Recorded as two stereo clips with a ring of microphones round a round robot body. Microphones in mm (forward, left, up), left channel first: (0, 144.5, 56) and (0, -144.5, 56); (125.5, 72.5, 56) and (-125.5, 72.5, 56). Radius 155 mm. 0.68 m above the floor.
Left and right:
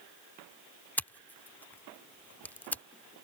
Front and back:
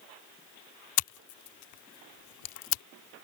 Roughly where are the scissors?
Ahead.